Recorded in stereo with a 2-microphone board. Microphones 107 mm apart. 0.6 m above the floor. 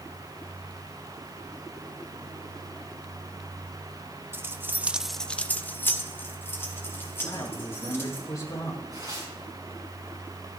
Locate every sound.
4.3 s keys jangling: 20° right (ahead or behind), 1.0 m; by 8.2 s 20° left (ahead or behind), 4 m
7.2 s a man speaking: 30° left (ahead or behind), 7.5 m
8.9 s tearing paper: 40° right (ahead or behind), 5 m